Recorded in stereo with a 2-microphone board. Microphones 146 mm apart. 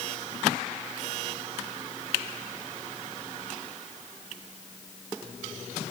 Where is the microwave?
No microwave in this recording.